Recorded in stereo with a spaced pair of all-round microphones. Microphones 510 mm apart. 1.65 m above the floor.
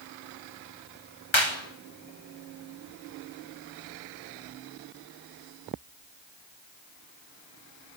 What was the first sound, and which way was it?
A clap, 65° left (ahead or behind).